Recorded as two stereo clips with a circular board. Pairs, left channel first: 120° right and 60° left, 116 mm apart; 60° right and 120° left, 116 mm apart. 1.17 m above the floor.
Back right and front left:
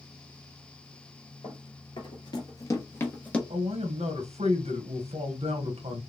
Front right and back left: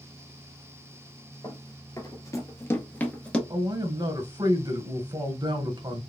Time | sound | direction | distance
1.4 | running footsteps | 105° right | 1.7 m
3.5 | a man speaking | 70° left | 1.3 m